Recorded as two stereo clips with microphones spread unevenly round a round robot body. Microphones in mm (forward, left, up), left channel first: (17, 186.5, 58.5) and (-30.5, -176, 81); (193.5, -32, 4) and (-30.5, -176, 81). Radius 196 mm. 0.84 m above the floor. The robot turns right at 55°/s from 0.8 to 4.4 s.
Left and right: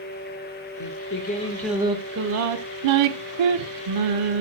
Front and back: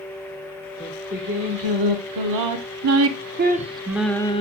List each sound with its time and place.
0.8 s singing: 125° left, 1.5 m; by 4.4 s 35° right, 1.5 m